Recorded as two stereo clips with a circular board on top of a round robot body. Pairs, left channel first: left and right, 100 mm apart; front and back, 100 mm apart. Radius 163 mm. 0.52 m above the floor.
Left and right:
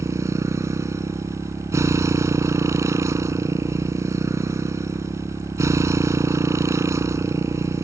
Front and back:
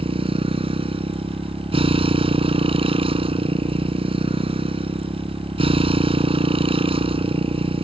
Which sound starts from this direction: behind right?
A motorcycle, at 0.0 s.